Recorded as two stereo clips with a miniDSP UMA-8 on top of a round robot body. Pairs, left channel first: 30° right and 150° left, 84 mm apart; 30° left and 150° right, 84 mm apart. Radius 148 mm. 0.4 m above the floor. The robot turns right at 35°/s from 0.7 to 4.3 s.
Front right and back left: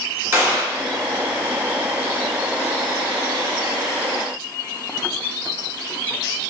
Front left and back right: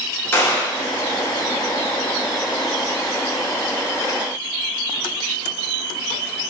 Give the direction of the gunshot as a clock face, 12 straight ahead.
9 o'clock.